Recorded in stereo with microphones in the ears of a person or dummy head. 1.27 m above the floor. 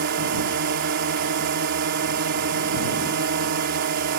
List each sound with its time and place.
0.0 s a drone: 60° right (ahead or behind)